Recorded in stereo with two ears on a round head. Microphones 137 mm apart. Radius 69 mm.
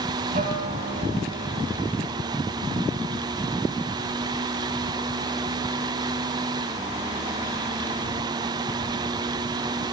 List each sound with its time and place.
0.3 s a guitar: 50° right (ahead or behind), 2 m